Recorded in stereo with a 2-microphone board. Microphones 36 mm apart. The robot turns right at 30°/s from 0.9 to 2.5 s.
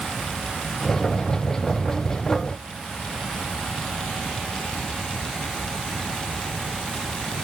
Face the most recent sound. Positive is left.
No sound to turn to.